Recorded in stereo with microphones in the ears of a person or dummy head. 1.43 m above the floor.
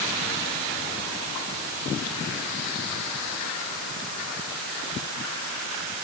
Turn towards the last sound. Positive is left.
No sound to turn to.